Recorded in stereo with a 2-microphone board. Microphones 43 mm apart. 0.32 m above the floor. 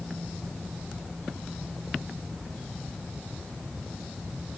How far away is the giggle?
I don't hear a giggle.